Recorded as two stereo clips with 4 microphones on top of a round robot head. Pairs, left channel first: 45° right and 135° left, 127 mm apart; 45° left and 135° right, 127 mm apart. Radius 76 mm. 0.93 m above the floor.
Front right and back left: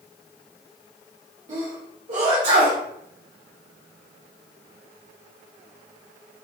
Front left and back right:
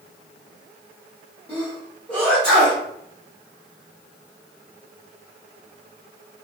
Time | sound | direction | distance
1.5 | a sneeze | 125° left | 1.2 m